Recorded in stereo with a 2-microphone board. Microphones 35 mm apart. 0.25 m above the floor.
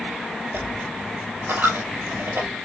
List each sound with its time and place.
0.5 s a dropped coin: 85° right, 1.4 m